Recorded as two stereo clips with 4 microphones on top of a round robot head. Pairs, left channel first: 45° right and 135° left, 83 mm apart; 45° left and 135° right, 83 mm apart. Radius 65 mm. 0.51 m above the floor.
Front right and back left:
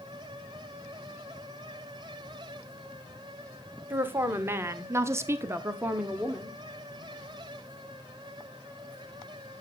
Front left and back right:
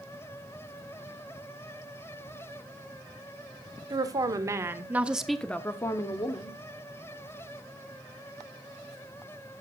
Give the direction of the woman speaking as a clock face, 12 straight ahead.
6 o'clock.